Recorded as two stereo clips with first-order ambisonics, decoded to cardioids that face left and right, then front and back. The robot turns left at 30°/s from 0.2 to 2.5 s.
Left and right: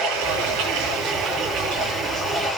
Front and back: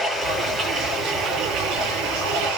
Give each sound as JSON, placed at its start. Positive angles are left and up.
{"t": 0.0, "sound": "running water", "azimuth_deg": -95, "distance_m": 9.5}